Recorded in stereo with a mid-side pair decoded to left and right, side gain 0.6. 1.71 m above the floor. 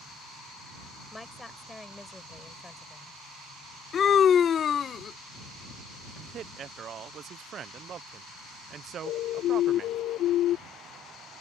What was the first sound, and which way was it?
A woman speaking, 10° left.